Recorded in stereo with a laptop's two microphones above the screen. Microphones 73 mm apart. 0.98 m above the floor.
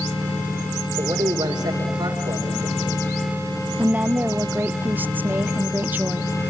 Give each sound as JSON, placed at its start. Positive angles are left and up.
{"t": 1.0, "sound": "a man speaking", "side_deg": -80, "distance_m": 2.5}
{"t": 3.8, "sound": "a woman speaking", "side_deg": -25, "distance_m": 0.5}